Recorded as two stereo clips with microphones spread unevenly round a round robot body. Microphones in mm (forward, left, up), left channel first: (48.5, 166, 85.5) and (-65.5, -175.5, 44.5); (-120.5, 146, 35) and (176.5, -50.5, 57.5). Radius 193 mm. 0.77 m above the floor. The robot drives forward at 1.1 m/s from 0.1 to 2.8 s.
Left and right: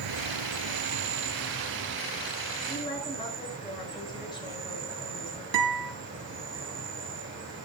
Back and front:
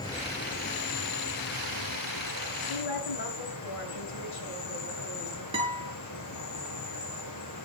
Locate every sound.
0.0 s an insect: 135° right, 1.4 m; by 7.7 s 165° right, 4 m
2.7 s a woman speaking: 150° left, 9.5 m
5.5 s a guitar: 110° right, 5.5 m